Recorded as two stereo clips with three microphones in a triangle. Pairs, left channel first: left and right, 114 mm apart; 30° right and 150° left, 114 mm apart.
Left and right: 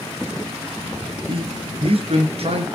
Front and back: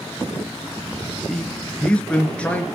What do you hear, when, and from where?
1.3 s a man speaking: 115° right, 3 m; by 2.6 s 110° right, 3.5 m